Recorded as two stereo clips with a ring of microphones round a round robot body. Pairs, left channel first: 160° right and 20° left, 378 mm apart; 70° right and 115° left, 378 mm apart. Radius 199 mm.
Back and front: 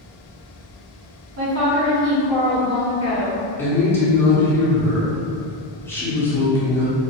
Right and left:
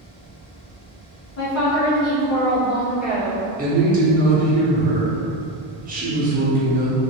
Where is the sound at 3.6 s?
130° left, 0.9 m.